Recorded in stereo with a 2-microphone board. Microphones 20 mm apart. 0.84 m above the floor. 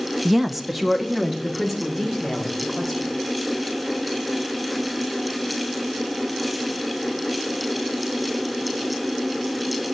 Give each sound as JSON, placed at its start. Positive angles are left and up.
{"t": 0.2, "sound": "a woman speaking", "side_deg": -10, "distance_m": 0.5}